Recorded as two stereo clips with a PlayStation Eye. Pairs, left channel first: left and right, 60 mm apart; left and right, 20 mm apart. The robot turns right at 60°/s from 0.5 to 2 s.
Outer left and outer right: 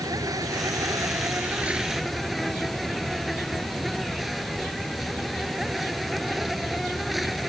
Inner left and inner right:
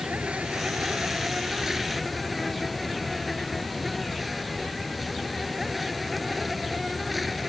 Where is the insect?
90° right; by 7.5 s straight ahead.